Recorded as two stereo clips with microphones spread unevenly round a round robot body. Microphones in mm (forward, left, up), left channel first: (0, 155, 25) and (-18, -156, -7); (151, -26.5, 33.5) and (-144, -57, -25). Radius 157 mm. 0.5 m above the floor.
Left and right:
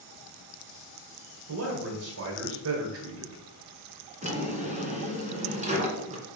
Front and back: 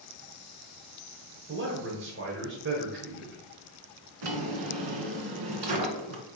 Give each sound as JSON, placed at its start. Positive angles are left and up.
{"t": 1.5, "sound": "a man speaking", "azimuth_deg": -130, "distance_m": 1.6}
{"t": 4.2, "sound": "a drawer", "azimuth_deg": -165, "distance_m": 1.7}